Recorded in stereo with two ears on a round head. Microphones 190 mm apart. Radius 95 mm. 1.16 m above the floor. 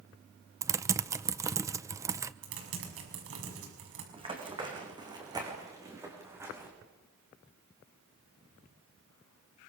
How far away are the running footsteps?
About 5 m.